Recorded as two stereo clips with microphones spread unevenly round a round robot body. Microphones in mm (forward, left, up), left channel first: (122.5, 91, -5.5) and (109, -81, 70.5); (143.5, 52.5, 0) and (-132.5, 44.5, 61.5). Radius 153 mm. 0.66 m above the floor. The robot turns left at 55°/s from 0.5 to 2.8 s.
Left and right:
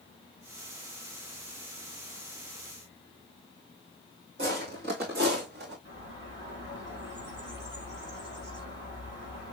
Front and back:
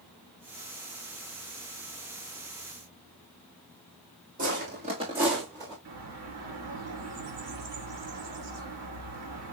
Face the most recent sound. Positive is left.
turn(degrees=-140)